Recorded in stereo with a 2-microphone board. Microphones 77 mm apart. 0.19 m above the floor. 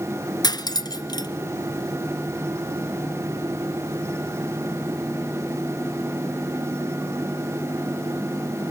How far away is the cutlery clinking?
About 1.3 m.